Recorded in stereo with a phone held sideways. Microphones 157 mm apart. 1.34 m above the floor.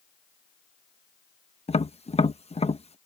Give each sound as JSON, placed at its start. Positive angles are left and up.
{"t": 1.7, "sound": "tapping", "side_deg": 40}